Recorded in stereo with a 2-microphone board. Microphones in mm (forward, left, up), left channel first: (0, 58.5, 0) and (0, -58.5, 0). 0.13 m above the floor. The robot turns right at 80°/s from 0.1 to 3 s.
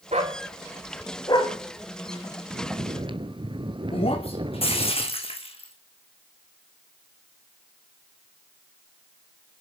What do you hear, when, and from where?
0.1 s a dog barking: 60° right (ahead or behind), 2.5 m; by 1.5 s 55° left (ahead or behind), 2.5 m
2.5 s snoring: 95° right, 1.0 m; by 4.9 s 55° right, 1.0 m
3.9 s breaking glass: 50° left (ahead or behind), 2.5 m